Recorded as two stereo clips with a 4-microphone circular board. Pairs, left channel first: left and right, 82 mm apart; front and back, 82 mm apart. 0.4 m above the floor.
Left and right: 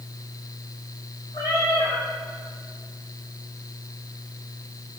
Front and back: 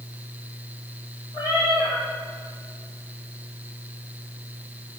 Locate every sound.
1.3 s a cat meowing: 35° left, 3.5 m